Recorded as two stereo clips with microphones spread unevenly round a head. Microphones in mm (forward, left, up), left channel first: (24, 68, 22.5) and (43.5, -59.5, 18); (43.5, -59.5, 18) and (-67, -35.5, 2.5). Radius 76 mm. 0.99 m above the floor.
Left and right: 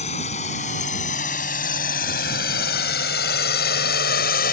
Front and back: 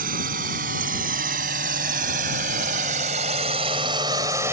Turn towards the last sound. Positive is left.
turn(degrees=90)